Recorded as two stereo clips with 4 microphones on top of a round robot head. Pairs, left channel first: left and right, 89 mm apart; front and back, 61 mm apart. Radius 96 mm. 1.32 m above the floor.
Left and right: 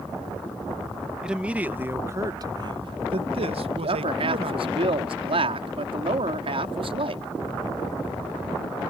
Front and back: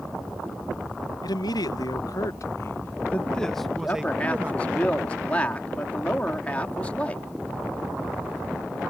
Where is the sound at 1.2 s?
10° right; by 4.8 s 110° right.